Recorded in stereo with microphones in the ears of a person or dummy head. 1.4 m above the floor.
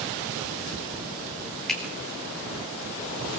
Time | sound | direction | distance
1.7 | a finger snap | centre (ahead or behind) | 3.5 m